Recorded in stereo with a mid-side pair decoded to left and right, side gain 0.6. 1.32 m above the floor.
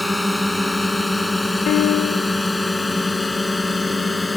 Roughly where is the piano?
Ahead left.